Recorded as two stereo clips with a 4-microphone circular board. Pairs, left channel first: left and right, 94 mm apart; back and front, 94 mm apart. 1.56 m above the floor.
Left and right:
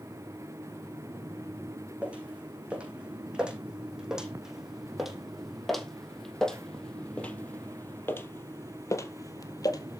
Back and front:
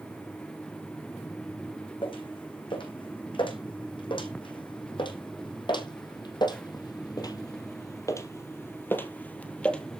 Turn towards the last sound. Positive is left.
turn(degrees=100)